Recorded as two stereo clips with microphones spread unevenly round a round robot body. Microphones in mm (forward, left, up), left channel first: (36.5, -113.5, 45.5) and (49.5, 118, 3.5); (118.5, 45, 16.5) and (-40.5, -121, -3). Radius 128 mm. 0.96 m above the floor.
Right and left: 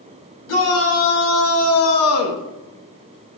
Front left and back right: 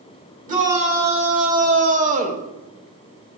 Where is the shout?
80° right, 2.5 m.